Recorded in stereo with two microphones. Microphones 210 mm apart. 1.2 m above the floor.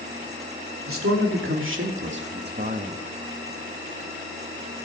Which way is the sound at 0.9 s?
75° right (ahead or behind).